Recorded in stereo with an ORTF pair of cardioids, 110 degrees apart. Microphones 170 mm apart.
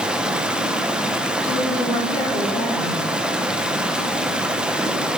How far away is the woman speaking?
About 3 m.